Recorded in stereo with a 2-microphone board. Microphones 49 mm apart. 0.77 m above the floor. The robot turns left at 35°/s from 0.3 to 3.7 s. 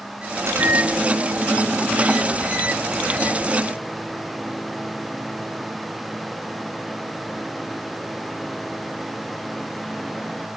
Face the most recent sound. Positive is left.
turn(degrees=180)